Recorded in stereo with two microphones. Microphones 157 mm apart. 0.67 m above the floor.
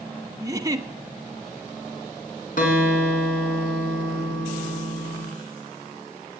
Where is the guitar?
60° left (ahead or behind), 4.5 m.